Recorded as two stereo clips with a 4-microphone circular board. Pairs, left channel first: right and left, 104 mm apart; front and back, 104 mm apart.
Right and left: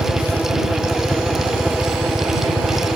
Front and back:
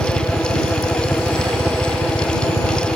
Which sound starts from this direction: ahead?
A helicopter, at 0.0 s.